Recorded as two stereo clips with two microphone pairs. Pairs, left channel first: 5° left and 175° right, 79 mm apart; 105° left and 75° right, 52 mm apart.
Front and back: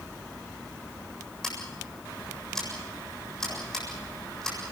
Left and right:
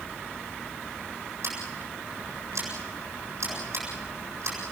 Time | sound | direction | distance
1.4 | scissors | 80° right | 8 m